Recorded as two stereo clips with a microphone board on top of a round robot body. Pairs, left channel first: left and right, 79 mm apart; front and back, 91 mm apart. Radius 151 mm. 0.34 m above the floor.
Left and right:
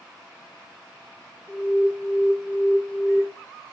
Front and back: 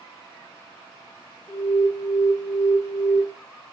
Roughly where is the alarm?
Ahead right.